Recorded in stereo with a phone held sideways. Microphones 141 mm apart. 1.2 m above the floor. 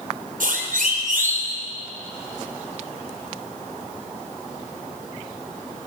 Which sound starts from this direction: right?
A siren, at 0.4 s.